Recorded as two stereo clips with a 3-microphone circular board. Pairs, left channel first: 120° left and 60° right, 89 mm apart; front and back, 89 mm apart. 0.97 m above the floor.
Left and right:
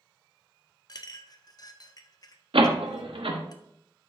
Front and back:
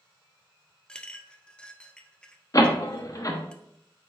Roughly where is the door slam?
Ahead right.